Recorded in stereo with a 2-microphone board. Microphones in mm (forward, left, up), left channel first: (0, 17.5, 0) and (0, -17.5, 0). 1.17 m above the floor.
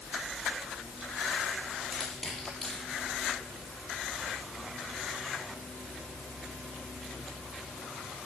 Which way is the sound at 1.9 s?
15° left (ahead or behind).